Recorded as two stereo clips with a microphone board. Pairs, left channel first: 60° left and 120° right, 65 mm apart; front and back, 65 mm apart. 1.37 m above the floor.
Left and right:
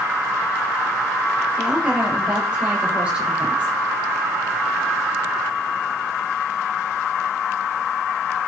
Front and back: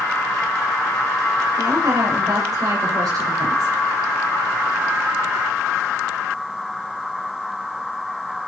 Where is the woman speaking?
160° left, 7 m; by 3.7 s 165° left, 6 m.